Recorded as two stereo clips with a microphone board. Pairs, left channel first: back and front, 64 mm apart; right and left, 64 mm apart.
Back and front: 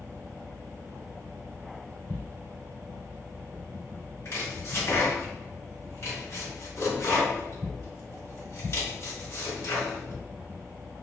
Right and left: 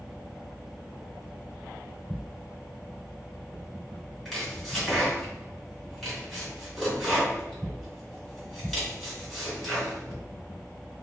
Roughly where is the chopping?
Behind.